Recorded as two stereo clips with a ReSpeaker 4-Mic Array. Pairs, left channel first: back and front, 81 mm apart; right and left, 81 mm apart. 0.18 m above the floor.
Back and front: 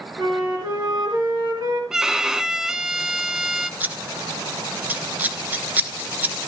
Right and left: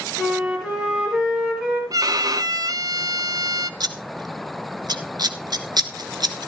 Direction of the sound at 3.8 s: 65° left.